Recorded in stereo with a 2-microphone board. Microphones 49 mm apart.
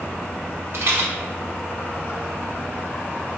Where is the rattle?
55° right (ahead or behind), 0.7 m.